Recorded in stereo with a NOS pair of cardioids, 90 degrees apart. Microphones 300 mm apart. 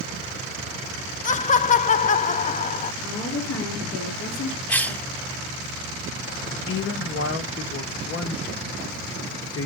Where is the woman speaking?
60° left, 3.5 m.